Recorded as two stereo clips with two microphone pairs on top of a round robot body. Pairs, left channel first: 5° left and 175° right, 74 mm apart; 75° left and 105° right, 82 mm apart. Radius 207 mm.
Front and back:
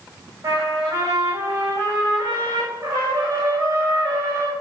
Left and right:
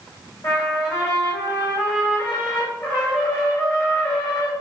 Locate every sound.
0.4 s a trumpet: 130° left, 5.5 m